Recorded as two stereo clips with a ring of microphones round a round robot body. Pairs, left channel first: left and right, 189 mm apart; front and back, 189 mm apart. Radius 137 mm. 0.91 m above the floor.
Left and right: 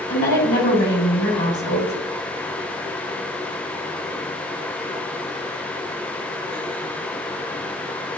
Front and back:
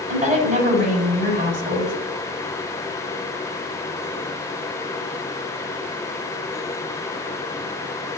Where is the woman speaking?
135° left, 5 m.